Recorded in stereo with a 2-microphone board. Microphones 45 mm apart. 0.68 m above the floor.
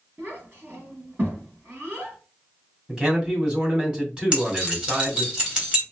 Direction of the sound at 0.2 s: 50° right (ahead or behind).